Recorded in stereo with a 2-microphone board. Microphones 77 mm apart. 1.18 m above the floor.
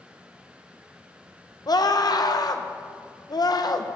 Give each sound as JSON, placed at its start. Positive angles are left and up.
{"t": 1.7, "sound": "a scream", "side_deg": 55, "distance_m": 0.7}